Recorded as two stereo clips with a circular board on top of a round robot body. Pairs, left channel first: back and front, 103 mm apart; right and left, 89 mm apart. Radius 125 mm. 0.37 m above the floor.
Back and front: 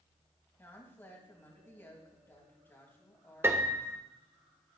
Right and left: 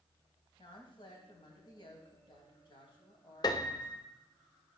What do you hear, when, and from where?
0.6 s a woman speaking: 115° right, 3 m
3.4 s a piano: 65° right, 1.1 m